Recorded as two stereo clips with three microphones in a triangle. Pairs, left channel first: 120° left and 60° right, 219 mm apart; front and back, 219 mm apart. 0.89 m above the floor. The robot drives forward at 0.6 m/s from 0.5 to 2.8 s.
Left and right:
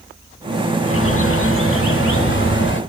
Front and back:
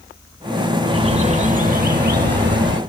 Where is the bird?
110° left, 1.1 m; by 2.8 s 150° left, 1.9 m.